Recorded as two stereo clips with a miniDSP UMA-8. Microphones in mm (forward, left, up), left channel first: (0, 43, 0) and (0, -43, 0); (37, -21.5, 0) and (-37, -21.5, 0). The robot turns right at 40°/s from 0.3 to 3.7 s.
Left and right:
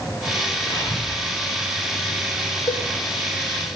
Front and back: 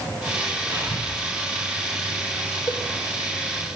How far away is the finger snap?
I don't hear a finger snap.